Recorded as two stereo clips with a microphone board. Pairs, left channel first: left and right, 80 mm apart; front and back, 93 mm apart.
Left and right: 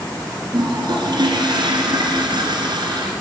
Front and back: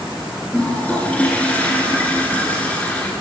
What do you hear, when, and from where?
0.5 s a toilet flushing: 75° right, 1.8 m